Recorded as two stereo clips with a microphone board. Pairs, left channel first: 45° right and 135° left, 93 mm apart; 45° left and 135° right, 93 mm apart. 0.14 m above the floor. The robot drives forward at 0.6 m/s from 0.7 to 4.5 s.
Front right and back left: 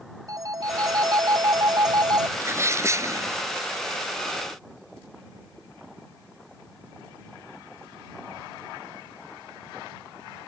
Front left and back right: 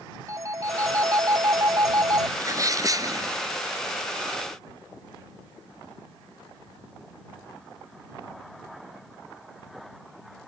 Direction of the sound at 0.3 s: 175° left.